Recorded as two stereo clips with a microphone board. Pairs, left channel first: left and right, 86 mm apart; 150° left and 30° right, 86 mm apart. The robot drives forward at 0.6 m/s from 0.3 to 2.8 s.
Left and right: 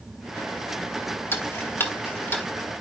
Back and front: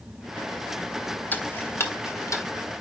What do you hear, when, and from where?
1.3 s ticking: 110° left, 1.5 m; by 2.5 s 145° left, 1.8 m